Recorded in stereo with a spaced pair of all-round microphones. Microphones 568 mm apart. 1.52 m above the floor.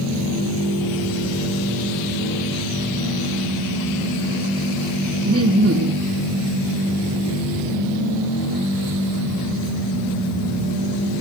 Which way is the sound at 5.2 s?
25° right (ahead or behind).